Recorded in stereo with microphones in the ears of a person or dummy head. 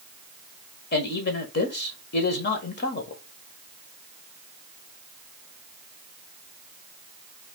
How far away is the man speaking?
About 1.5 m.